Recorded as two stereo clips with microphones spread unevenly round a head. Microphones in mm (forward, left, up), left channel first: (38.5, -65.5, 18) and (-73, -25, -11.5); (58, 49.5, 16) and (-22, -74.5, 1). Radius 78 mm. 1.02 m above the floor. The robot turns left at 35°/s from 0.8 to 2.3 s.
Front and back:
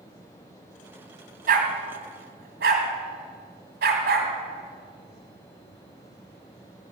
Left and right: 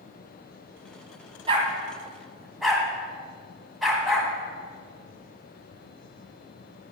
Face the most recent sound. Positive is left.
turn(degrees=145)